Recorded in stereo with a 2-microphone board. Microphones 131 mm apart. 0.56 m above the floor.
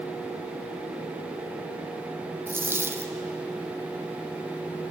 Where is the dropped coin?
15° right (ahead or behind), 1.7 m.